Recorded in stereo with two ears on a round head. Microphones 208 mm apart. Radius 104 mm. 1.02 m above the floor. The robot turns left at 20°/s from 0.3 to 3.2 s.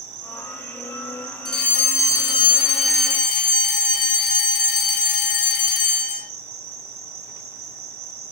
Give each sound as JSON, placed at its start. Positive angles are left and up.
{"t": 0.0, "sound": "an insect", "azimuth_deg": -80, "distance_m": 3.0}
{"t": 1.4, "sound": "a fire alarm", "azimuth_deg": 180, "distance_m": 4.0}